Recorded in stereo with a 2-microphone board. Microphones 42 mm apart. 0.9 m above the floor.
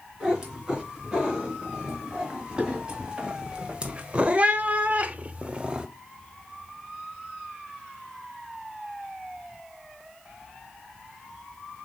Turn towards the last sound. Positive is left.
turn(degrees=-20)  # may be behind; listen again after turning